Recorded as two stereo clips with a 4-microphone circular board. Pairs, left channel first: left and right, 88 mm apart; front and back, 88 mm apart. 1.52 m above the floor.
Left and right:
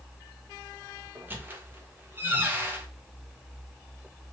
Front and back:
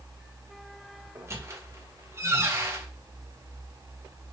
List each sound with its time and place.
1.1 s a squeak: 145° right, 0.7 m